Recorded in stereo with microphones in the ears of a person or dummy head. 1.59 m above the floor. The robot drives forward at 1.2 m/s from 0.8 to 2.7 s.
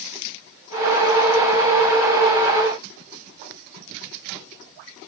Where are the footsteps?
I don't hear footsteps.